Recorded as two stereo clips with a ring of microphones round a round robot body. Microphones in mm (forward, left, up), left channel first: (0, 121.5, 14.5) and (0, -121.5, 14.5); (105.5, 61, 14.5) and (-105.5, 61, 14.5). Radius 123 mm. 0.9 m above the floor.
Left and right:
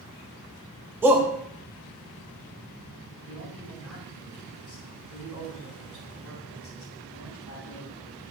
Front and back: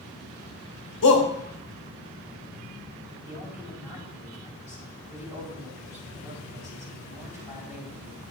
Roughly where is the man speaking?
Ahead left.